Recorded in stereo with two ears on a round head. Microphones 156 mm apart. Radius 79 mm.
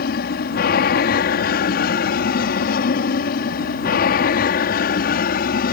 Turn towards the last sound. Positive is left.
turn(degrees=55)  # may be behind; listen again after turning